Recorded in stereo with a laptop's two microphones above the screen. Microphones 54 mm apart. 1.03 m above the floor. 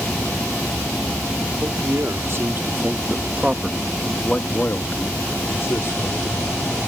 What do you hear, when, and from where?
1.6 s a man speaking: 65° right (ahead or behind); by 6.9 s 65° left (ahead or behind)